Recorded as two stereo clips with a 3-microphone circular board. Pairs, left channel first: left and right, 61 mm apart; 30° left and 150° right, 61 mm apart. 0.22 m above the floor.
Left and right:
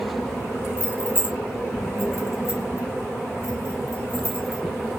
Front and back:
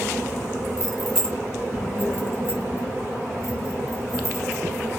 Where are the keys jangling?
130° left, 1.0 m; by 4.6 s 55° left, 3 m.